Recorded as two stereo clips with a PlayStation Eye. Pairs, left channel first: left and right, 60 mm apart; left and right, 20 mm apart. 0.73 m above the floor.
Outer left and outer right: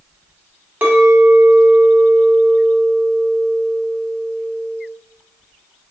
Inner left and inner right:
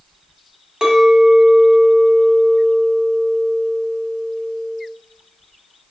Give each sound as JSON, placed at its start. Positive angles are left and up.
{"t": 0.8, "sound": "a clink", "side_deg": -30, "distance_m": 0.8}